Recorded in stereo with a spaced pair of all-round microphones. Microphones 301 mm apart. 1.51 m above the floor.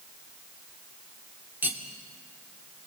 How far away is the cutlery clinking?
About 2 m.